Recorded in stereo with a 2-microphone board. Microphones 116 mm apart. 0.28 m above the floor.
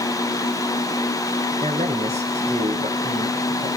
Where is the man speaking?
70° right (ahead or behind), 4 m.